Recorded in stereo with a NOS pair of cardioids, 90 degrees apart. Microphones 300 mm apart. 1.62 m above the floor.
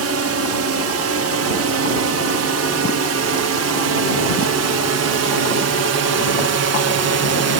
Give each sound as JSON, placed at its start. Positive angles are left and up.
{"t": 0.0, "sound": "a drone", "azimuth_deg": -55}